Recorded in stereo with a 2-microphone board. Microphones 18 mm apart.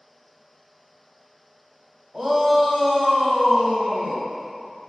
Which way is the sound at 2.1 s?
20° right (ahead or behind).